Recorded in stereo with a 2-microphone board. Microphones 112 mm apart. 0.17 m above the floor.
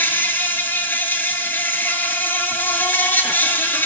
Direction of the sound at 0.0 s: 20° left (ahead or behind).